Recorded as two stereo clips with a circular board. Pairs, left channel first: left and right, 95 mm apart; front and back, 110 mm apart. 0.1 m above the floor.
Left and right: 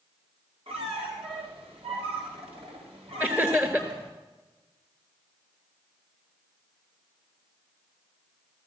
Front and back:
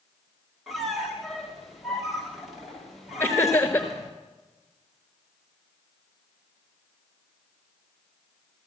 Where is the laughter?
45° right, 1.3 m.